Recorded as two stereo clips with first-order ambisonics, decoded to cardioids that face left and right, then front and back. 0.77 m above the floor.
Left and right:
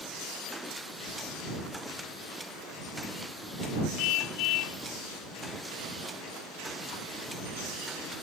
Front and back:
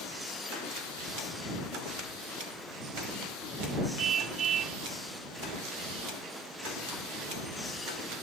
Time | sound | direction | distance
4.0 | a car horn | 115° left | ?